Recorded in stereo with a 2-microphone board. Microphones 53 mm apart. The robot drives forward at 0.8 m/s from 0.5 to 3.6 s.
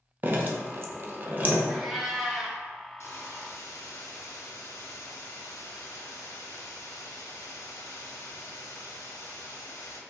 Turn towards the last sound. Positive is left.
turn(degrees=85)